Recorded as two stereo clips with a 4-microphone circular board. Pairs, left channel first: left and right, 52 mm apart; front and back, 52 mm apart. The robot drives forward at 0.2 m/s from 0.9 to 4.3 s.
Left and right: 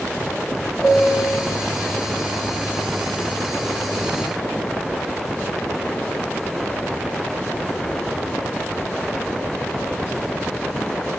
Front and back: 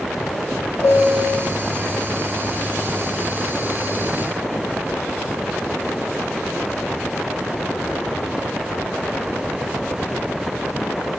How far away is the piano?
About 1.4 m.